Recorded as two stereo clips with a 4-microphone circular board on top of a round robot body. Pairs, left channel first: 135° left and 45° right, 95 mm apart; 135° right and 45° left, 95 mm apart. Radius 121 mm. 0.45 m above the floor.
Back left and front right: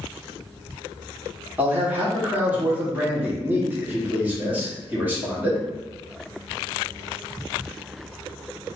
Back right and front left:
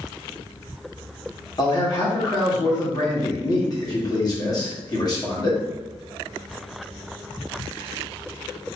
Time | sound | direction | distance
1.6 | a man speaking | 110° right | 1.7 m